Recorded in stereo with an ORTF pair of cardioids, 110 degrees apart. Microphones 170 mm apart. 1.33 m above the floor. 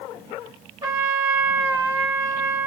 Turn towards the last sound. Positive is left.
turn(degrees=-20)